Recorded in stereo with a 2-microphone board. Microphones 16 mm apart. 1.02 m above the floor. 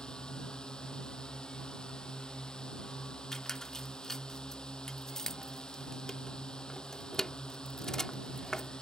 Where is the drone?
55° left (ahead or behind).